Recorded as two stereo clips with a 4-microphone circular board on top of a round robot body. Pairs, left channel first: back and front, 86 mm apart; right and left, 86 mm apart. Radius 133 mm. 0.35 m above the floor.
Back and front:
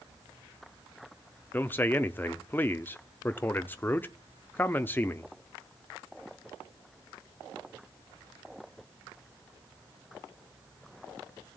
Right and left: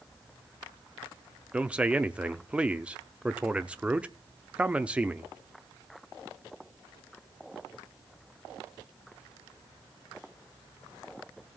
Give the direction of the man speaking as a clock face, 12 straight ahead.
7 o'clock.